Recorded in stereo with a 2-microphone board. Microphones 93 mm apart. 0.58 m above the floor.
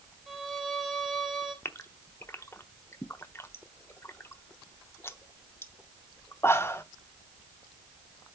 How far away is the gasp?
About 0.7 m.